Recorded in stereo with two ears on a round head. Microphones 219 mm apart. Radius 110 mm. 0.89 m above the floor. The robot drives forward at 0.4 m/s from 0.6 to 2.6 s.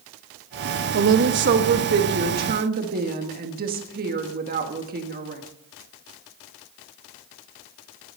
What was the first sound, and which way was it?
A woman speaking, 50° right (ahead or behind).